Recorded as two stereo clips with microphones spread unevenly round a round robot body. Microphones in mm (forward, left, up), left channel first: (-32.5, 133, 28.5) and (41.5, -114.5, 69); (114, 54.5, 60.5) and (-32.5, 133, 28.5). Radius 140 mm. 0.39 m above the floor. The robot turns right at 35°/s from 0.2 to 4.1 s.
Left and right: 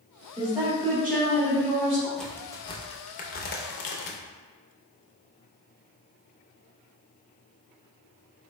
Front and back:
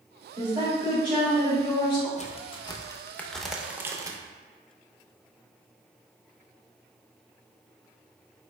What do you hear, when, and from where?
0.4 s a woman speaking: 150° right, 1.4 m; by 2.1 s 90° right, 1.4 m
2.2 s a crack: 25° left, 0.6 m; by 4.2 s 95° left, 0.6 m